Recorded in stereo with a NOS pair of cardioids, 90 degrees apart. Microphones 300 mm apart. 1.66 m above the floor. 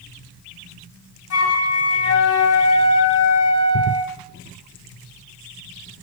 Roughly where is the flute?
Ahead left.